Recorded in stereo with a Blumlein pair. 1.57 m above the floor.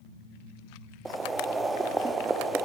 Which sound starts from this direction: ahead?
Boiling, at 1.1 s.